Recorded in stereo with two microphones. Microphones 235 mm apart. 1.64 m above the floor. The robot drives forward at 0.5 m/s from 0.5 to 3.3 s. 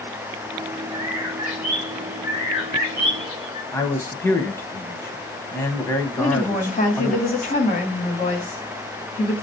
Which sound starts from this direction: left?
A woman speaking, at 6.2 s.